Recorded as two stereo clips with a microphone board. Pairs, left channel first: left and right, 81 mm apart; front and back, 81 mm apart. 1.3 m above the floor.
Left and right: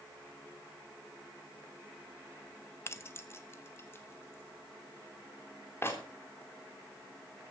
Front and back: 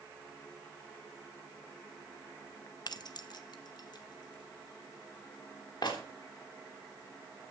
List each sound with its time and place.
2.9 s keys jangling: 30° left, 1.0 m